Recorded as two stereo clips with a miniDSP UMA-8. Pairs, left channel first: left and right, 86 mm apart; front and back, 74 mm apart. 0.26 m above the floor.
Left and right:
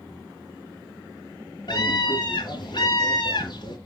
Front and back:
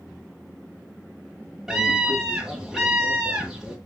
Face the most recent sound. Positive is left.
turn(degrees=95)